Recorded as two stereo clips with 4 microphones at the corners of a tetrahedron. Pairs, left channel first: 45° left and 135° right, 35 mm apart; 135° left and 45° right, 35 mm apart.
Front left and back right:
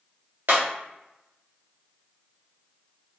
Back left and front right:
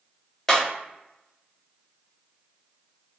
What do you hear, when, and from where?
0.5 s breaking glass: 155° right, 1.0 m